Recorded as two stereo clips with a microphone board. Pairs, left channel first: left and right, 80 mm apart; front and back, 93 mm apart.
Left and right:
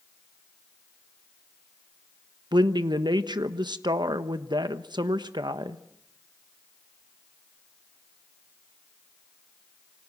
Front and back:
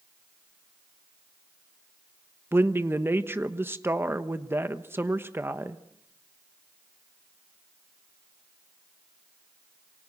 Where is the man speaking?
115° right, 1.2 m.